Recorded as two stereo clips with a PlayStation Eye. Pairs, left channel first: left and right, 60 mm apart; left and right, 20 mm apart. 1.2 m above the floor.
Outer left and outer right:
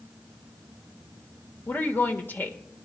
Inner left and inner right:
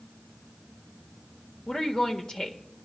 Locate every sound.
1.7 s a woman speaking: 35° left (ahead or behind), 1.4 m